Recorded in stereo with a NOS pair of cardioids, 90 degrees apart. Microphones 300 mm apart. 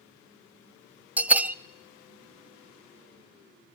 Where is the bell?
5° right, 0.6 m.